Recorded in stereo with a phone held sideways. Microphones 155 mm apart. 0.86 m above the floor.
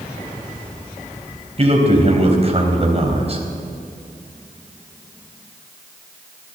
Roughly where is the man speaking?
Right.